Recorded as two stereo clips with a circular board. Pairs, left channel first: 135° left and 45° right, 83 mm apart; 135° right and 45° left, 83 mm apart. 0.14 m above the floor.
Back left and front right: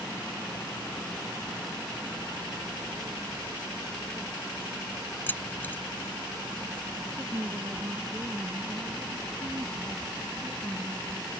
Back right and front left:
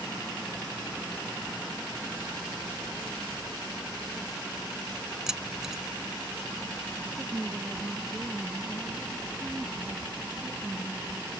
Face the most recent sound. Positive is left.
turn(degrees=-25)